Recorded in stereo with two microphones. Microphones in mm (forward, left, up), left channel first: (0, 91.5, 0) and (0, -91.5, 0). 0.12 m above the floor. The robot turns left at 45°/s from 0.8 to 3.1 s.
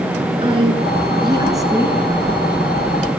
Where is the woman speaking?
30° right (ahead or behind), 1.4 m; by 2.0 s 10° right (ahead or behind), 1.4 m.